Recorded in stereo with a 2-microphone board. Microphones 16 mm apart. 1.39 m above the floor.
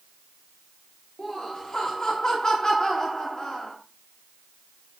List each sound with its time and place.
1.2 s laughter: 20° left (ahead or behind), 1.9 m